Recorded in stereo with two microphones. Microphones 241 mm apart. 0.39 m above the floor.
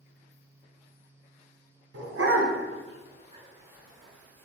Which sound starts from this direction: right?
A dog barking, at 1.9 s.